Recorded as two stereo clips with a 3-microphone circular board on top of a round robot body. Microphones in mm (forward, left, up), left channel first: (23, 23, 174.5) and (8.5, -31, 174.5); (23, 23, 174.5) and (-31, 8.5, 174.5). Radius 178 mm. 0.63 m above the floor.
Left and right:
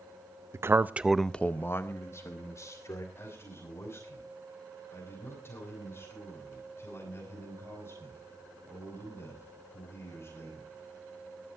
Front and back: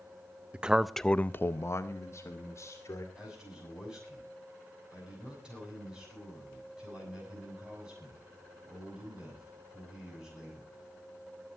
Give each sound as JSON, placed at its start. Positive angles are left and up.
{"t": 0.5, "sound": "a man speaking", "azimuth_deg": -100, "distance_m": 0.9}
{"t": 3.1, "sound": "a man speaking", "azimuth_deg": 120, "distance_m": 7.5}